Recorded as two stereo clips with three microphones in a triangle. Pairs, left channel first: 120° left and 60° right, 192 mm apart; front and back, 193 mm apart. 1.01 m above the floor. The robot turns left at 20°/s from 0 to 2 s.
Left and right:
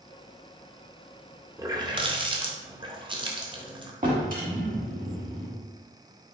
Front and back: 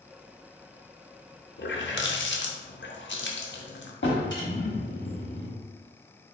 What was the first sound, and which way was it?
A running tap, 15° left.